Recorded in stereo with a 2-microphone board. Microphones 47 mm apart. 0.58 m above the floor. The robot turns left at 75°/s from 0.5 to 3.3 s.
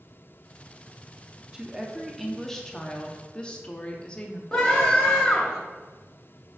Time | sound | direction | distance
1.5 | a woman speaking | 15° right (ahead or behind) | 0.6 m
4.5 | a scream | 10° left (ahead or behind) | 0.9 m